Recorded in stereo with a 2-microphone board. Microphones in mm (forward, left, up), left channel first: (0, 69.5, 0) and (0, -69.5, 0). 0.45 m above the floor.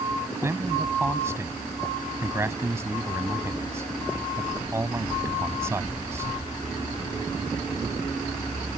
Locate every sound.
0.3 s a man speaking: 20° right (ahead or behind)